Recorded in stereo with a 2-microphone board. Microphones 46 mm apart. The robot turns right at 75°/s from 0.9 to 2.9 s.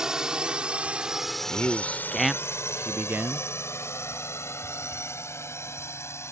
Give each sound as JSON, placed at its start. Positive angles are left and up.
{"t": 0.0, "sound": "a drone", "side_deg": -15}
{"t": 1.5, "sound": "a man speaking", "azimuth_deg": 120}